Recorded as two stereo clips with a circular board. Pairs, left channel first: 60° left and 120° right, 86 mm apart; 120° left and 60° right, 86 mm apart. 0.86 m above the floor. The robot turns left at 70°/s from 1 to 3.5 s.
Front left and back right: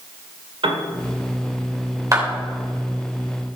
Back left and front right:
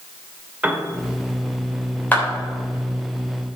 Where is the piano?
130° right, 1.9 m.